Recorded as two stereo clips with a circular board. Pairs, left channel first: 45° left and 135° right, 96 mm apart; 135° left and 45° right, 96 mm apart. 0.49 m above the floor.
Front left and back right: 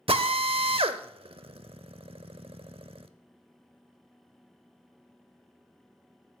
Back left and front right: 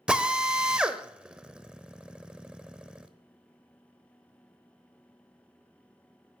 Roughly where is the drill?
Behind right.